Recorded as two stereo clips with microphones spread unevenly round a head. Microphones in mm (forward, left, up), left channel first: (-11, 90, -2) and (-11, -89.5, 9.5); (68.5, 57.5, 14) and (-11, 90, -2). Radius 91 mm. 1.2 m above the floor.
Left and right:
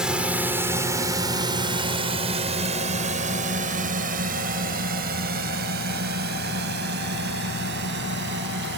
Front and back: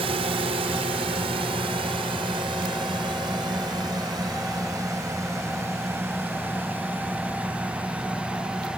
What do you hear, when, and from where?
0.0 s a drone: 175° right; by 8.8 s 115° right